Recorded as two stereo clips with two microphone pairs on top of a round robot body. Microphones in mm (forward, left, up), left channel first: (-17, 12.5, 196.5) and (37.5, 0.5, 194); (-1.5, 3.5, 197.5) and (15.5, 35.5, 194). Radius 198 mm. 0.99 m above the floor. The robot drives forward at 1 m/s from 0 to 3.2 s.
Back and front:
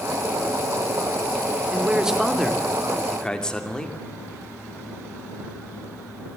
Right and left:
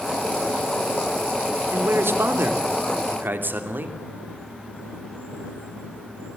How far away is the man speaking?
About 3 m.